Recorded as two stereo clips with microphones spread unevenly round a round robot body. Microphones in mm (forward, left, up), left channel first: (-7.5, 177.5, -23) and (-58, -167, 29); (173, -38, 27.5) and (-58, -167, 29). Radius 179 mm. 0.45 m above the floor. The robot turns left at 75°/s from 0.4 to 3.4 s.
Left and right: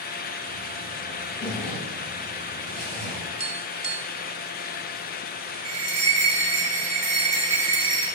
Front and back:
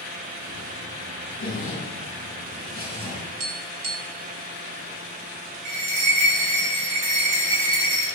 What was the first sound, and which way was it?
A zipper, 10° left.